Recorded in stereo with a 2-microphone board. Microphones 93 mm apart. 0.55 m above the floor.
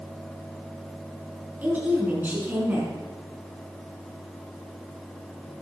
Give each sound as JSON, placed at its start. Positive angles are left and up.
{"t": 1.6, "sound": "a woman speaking", "side_deg": -20, "distance_m": 5.0}